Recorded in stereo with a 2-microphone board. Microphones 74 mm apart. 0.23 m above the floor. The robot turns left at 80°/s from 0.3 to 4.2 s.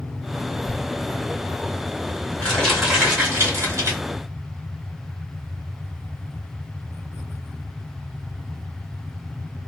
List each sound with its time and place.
0.7 s crumpling: 10° left (ahead or behind), 1.7 m; by 4.0 s 40° right (ahead or behind), 1.7 m